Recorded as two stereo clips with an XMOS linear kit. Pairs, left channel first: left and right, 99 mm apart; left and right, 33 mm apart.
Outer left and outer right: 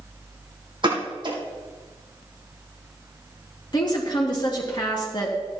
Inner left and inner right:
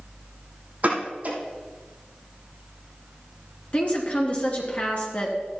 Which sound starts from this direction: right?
A pop, at 0.8 s.